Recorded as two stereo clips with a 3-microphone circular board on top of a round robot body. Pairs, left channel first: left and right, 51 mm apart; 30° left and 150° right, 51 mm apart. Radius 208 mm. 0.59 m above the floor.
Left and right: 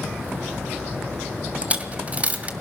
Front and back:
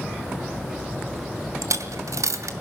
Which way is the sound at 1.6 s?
155° right.